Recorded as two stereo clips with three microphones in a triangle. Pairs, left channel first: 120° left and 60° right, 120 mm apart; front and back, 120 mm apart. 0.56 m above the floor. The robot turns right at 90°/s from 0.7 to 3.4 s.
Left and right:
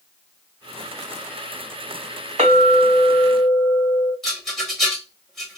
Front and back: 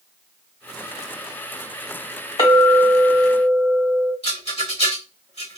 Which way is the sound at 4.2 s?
35° left.